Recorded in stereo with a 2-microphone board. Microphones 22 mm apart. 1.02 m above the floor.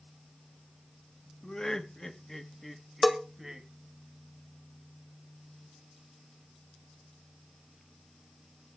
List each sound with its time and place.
1.4 s laughter: 30° left (ahead or behind), 1.5 m; by 3.7 s 20° right (ahead or behind), 1.5 m
3.0 s a bell: 5° left (ahead or behind), 1.4 m